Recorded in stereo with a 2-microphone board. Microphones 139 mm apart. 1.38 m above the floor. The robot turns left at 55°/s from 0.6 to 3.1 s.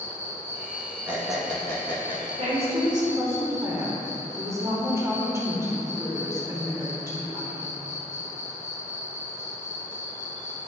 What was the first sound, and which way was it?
An insect, 165° right.